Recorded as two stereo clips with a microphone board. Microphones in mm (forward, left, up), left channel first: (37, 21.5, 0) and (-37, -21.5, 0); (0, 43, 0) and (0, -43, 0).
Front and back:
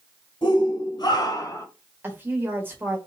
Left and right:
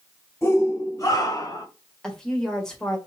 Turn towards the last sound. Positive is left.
turn(degrees=165)